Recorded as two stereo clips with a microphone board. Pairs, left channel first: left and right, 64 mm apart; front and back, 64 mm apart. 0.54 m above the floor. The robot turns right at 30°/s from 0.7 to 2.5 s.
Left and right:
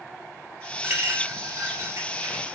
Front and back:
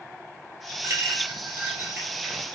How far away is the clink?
About 1.6 m.